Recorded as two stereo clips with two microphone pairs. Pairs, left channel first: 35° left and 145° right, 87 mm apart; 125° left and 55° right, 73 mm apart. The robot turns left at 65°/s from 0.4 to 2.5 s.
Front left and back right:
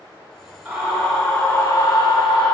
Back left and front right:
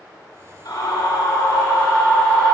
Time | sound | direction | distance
0.7 | a scream | 130° left | 3.5 m